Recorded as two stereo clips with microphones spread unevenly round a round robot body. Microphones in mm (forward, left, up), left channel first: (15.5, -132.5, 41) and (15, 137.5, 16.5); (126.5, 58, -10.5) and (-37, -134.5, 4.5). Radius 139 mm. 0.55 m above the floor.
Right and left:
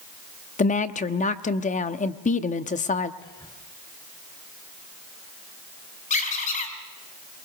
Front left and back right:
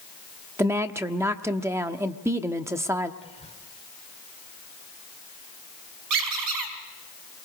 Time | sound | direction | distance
0.6 | a woman speaking | 55° right | 1.0 m
3.2 | whispering | 10° right | 2 m
6.1 | a squeak | 155° right | 4 m